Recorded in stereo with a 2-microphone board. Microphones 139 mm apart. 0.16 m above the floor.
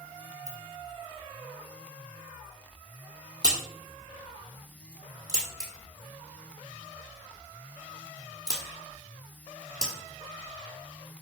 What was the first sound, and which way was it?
A ringtone, 25° left (ahead or behind).